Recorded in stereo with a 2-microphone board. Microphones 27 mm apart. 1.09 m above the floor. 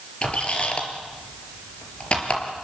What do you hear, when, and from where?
0.2 s a squeak: 35° left (ahead or behind), 4 m